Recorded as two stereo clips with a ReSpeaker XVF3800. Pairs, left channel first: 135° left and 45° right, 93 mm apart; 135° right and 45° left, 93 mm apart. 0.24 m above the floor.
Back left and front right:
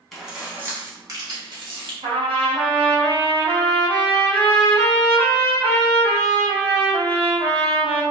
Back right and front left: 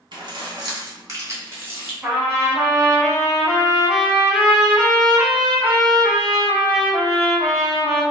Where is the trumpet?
30° right, 1.8 m.